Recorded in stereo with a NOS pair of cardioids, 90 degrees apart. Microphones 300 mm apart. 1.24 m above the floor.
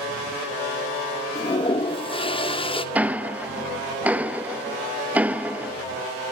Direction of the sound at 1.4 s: 20° left.